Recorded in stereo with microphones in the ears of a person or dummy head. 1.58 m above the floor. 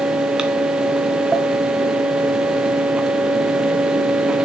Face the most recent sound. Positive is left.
turn(degrees=0)  # may be behind; listen again after turning